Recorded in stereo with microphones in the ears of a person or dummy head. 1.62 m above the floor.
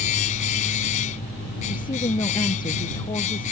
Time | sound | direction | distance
0.0 | a machine running | 40° left (ahead or behind) | ?
1.7 | a woman speaking | 25° left (ahead or behind) | ?